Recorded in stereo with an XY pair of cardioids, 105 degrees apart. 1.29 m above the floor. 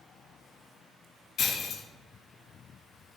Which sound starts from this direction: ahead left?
Breaking glass, at 1.4 s.